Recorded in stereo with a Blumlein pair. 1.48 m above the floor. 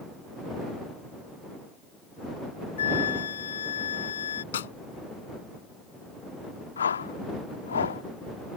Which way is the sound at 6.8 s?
70° left.